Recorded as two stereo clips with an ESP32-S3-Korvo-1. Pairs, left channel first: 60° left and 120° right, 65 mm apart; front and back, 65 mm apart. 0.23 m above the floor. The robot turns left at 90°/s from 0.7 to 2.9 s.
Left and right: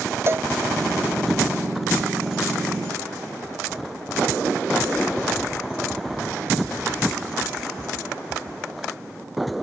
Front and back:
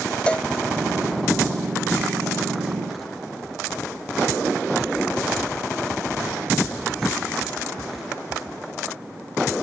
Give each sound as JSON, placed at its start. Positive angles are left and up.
{"t": 0.3, "sound": "a cowbell", "azimuth_deg": -75}